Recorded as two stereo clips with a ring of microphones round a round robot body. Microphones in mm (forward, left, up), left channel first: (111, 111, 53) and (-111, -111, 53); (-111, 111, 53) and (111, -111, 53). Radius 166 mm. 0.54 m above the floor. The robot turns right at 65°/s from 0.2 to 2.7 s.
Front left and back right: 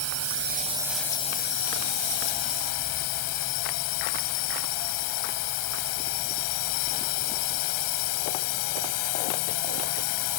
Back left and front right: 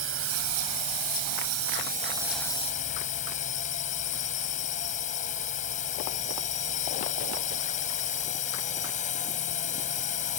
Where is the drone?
95° right; by 10.4 s 70° left.